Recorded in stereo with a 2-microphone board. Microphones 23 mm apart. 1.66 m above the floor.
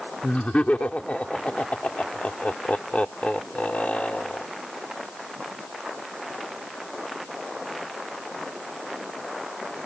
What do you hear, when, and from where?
0.2 s laughter: 85° left